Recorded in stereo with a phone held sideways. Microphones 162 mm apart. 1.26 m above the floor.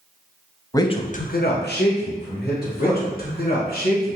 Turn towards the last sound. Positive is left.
turn(degrees=65)  # may be behind; listen again after turning